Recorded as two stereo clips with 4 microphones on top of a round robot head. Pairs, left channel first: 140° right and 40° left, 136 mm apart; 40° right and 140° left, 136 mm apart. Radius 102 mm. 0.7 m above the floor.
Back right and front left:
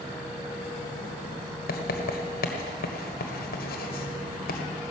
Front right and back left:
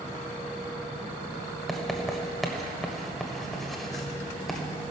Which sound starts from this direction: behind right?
Writing, at 1.7 s.